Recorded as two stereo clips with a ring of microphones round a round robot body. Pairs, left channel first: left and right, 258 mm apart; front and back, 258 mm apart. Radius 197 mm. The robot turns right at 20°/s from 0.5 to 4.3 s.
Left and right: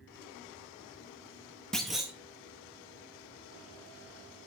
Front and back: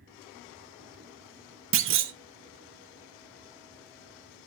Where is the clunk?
175° left, 0.5 m; by 2.1 s 175° right, 0.5 m.